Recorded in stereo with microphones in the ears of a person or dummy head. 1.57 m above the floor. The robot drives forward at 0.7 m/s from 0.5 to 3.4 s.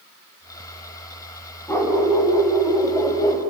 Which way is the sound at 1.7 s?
10° left (ahead or behind).